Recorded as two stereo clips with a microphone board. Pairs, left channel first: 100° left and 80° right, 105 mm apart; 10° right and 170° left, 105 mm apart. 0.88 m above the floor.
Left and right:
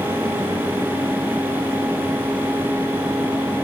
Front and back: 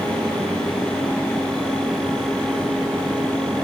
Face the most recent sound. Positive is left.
No sound to turn to.